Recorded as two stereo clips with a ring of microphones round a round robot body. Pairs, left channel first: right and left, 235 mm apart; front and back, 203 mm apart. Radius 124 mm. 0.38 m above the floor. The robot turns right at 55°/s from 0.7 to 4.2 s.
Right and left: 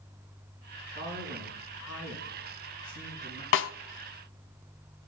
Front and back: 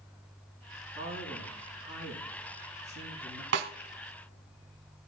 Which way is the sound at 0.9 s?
160° right.